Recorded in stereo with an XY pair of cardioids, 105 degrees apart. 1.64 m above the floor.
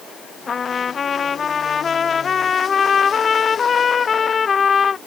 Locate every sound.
0.5 s a trumpet: 40° left